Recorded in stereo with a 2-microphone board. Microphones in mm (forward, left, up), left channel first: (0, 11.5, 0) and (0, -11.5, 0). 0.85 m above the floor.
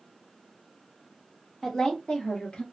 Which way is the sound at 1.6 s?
20° left (ahead or behind).